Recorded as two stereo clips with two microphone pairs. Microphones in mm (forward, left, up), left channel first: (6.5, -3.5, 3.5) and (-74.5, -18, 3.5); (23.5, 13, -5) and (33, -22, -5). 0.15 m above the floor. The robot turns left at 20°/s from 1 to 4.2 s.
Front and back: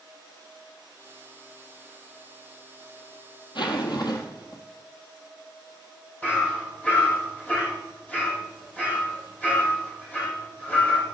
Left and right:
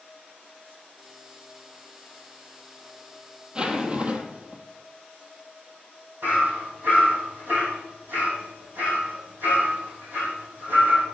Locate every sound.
3.5 s a zipper: 10° right, 1.1 m; by 4.6 s 25° right, 1.1 m
6.2 s hammering: 60° right, 4 m